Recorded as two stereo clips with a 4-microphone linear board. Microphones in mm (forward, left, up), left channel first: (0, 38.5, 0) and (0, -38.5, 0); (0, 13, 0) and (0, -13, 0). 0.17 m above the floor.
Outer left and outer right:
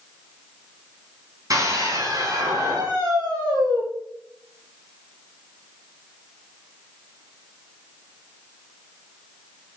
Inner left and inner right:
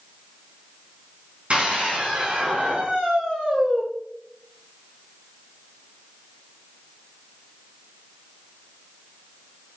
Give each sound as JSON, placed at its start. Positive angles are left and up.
{"t": 1.5, "sound": "a scream", "side_deg": -50, "distance_m": 8.5}